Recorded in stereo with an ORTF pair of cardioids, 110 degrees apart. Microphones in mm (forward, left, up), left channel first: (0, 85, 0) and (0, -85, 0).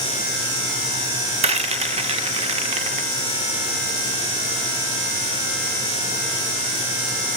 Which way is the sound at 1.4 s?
35° right.